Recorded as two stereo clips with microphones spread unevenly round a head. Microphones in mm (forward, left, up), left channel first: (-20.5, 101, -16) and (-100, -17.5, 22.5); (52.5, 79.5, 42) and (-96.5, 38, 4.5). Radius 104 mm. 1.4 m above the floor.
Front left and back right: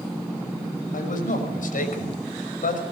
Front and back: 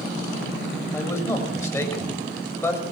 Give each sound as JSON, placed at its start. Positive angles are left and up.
{"t": 0.9, "sound": "a man speaking", "azimuth_deg": 85, "distance_m": 6.0}